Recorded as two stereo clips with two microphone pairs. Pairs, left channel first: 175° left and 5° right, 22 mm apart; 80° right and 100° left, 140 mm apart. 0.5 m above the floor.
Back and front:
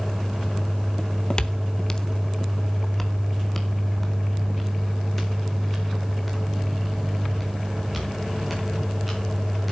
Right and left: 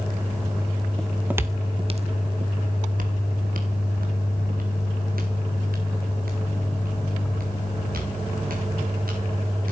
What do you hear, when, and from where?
1.0 s footsteps: 165° right, 0.6 m; by 9.7 s 90° left, 5 m